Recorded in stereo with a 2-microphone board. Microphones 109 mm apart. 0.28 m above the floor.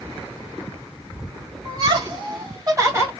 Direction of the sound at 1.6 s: 50° right (ahead or behind).